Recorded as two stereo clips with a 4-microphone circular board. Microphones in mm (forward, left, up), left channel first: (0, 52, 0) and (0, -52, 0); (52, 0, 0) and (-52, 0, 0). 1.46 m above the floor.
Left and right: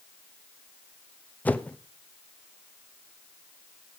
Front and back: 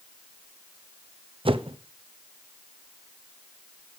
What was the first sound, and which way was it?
A whoosh, 160° left.